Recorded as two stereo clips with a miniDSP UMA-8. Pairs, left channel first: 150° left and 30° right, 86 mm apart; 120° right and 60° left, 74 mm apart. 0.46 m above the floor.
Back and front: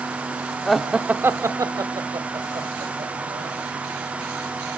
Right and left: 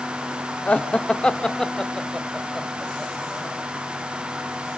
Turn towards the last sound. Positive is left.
turn(degrees=-25)